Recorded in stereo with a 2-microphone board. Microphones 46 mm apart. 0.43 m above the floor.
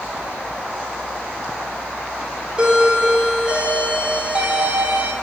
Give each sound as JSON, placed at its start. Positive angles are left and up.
{"t": 2.6, "sound": "a doorbell", "side_deg": -25, "distance_m": 1.3}